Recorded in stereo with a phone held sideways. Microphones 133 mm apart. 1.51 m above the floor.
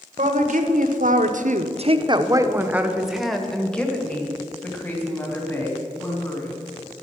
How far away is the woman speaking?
About 1.3 m.